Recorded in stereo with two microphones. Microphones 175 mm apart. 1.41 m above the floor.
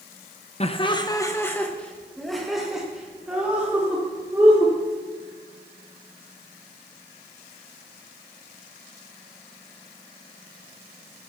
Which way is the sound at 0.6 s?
35° left (ahead or behind).